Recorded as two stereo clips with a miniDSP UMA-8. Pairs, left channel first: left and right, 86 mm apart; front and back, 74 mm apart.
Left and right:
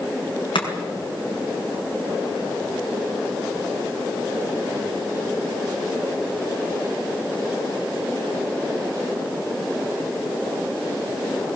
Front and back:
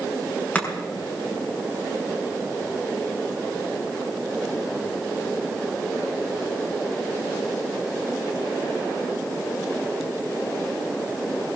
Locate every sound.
0.6 s chopping: 70° left, 5.5 m